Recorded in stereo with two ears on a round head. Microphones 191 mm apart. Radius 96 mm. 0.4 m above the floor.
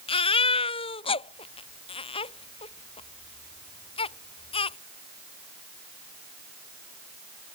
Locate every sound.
0.1 s a baby crying: 25° left (ahead or behind)